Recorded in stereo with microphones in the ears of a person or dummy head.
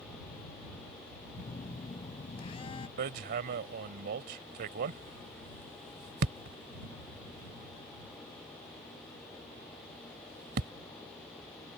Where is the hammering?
50° right (ahead or behind).